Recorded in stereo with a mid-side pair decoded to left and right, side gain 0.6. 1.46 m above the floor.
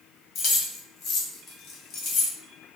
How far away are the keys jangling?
About 1.1 m.